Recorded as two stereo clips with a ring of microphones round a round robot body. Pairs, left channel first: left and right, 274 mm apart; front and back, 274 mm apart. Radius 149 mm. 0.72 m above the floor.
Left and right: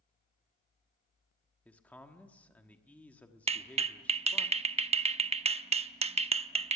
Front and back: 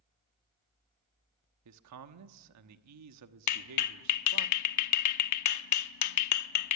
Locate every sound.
1.6 s a man speaking: 175° left, 1.2 m
3.5 s a clap: 20° right, 0.8 m